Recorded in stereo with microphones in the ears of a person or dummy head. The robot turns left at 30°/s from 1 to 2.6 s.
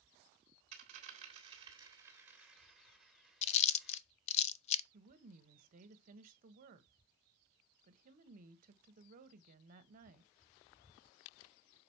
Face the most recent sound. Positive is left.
turn(degrees=-45)  # may be behind; listen again after turning